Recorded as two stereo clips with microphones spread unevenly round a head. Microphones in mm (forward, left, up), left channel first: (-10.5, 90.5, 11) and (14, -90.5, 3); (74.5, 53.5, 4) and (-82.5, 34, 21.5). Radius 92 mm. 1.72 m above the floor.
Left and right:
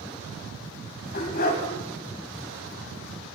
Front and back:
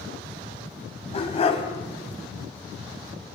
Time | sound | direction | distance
1.1 | a dog barking | 60° left | 4 m